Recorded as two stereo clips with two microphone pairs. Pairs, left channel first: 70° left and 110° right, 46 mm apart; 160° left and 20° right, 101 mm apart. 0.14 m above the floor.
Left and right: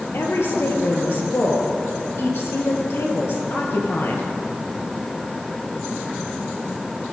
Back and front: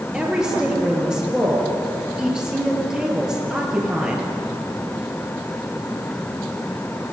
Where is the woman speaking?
60° left, 2.5 m.